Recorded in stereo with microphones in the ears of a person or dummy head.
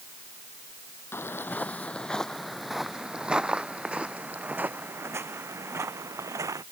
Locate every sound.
1.1 s footsteps: 10° left (ahead or behind); by 6.6 s 20° right (ahead or behind)